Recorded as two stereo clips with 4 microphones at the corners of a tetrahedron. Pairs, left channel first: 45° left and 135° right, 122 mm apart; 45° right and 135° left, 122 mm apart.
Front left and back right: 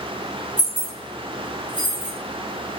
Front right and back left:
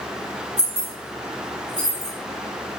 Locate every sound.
0.6 s keys jangling: 40° right, 1.2 m; by 2.1 s 15° left, 1.2 m